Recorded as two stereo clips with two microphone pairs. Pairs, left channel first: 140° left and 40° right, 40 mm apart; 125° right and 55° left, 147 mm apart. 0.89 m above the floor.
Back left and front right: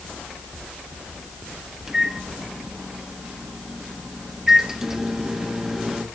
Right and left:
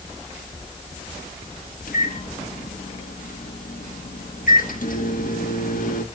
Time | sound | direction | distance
1.9 | a microwave | 115° right | 1.2 m